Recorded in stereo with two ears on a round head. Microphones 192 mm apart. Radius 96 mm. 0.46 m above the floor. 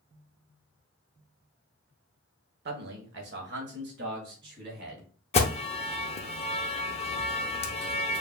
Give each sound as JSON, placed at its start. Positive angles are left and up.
{"t": 2.6, "sound": "a man speaking", "side_deg": -50, "distance_m": 1.1}
{"t": 5.3, "sound": "an alarm", "side_deg": 30, "distance_m": 0.7}